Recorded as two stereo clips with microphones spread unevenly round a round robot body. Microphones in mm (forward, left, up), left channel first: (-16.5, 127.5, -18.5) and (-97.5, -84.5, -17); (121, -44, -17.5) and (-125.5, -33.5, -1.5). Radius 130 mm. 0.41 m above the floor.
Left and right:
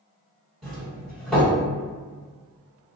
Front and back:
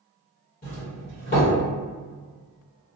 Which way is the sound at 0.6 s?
20° right.